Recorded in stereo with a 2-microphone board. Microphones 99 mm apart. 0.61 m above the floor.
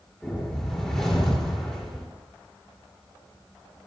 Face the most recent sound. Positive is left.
turn(degrees=5)  # may be behind; listen again after turning